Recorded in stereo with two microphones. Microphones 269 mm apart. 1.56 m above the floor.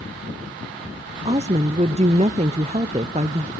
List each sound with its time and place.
1.2 s a woman speaking: 25° right (ahead or behind), 0.6 m